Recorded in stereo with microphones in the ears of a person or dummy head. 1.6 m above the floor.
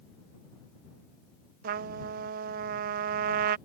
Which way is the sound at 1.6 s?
50° right (ahead or behind).